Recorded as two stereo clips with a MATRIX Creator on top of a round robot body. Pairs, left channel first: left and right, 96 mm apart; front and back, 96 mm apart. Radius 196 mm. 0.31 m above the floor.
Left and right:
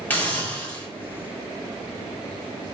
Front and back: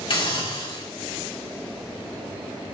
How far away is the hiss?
About 3.5 m.